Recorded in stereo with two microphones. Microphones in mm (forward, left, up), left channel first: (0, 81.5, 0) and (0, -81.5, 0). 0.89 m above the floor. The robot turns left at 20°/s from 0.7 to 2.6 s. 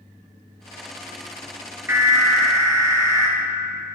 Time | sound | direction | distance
1.9 | an alarm | 15° right (ahead or behind) | 0.7 m